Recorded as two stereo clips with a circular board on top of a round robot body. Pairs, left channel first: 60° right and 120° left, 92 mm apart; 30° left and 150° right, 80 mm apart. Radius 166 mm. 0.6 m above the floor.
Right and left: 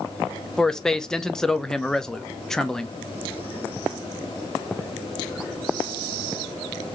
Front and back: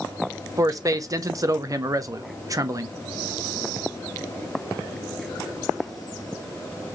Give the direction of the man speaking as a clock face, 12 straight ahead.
5 o'clock.